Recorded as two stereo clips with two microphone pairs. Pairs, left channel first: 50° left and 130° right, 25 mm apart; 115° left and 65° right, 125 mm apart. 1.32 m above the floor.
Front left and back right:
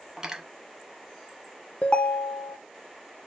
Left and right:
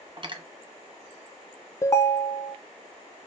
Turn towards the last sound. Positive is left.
turn(degrees=55)